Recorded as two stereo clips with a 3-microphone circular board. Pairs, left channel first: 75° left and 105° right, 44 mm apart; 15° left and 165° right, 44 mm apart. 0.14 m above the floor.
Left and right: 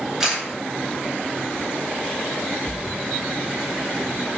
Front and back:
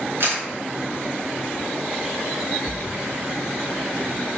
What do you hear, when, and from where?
0.2 s a camera shutter: 175° left, 3.5 m
2.6 s a splash: 10° right, 1.0 m